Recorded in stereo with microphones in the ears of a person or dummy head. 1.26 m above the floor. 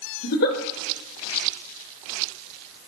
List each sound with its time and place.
0.2 s a giggle: 60° left (ahead or behind), 3 m